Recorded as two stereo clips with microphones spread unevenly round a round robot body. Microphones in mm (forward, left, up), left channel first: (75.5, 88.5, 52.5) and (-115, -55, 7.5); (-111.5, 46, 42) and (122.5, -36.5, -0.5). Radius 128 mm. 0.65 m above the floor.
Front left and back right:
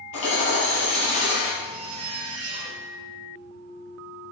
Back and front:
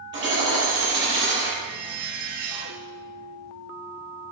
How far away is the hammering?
About 6.5 m.